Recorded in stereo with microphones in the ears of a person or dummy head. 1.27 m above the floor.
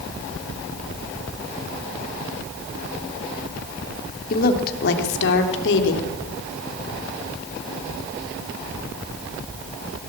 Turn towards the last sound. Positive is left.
turn(degrees=65)  # may be behind; listen again after turning